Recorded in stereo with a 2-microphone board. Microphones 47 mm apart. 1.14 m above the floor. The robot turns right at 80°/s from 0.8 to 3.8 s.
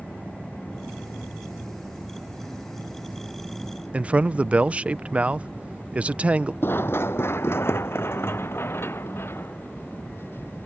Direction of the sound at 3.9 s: 30° right (ahead or behind).